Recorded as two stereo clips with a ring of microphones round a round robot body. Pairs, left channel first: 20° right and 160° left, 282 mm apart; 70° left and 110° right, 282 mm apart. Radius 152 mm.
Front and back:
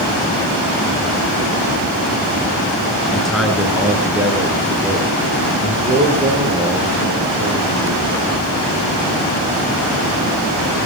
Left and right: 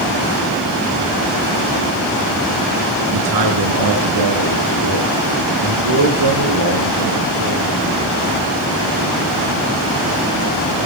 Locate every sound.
3.1 s a man speaking: 110° right, 4.5 m; by 8.3 s 130° right, 11 m